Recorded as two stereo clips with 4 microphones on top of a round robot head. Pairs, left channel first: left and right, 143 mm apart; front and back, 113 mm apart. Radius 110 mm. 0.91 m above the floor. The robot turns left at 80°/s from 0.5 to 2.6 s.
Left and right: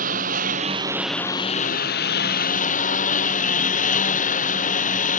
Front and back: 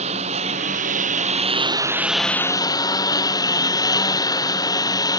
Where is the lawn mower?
135° right; by 5.2 s 60° left.